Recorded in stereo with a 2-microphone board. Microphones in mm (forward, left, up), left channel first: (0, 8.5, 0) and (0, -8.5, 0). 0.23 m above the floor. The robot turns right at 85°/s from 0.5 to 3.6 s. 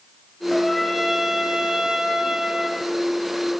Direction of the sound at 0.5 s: 145° left.